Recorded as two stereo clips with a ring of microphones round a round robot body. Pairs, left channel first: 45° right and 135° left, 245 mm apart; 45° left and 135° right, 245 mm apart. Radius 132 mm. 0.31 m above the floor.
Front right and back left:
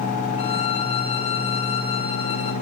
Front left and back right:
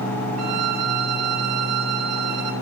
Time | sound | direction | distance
0.4 | a violin | 115° right | 1.8 m